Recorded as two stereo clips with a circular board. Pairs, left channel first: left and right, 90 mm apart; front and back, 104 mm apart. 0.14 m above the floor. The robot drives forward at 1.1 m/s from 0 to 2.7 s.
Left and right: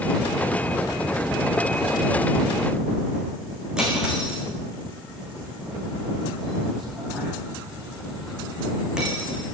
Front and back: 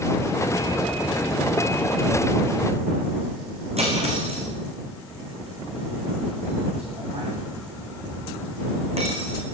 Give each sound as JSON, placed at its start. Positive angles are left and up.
{"t": 3.8, "sound": "cutlery clinking", "azimuth_deg": -170, "distance_m": 6.5}